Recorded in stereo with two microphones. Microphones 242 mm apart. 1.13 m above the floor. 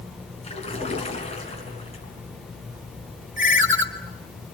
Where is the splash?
25° left (ahead or behind), 4 m.